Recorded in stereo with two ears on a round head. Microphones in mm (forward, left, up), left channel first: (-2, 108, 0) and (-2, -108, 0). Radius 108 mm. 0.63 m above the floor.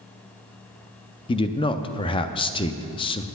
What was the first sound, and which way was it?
A man speaking, 20° left (ahead or behind).